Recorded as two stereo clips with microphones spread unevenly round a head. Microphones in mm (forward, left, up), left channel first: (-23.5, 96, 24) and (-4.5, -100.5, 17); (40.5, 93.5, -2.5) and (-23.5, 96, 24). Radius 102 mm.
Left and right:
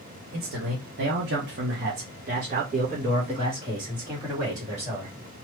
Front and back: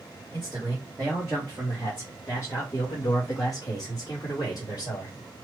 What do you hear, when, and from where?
0.3 s a man speaking: 110° right, 1.0 m; by 5.1 s 10° right, 2 m